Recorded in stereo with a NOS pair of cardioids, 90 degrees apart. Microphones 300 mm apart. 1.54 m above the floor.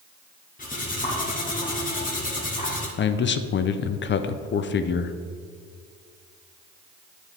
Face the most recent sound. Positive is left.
turn(degrees=40)